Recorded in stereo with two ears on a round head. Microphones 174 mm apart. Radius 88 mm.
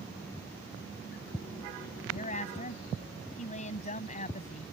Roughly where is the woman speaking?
Left.